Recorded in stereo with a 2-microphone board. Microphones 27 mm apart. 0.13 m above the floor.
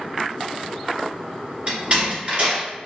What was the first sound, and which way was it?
A door slam, 40° right (ahead or behind).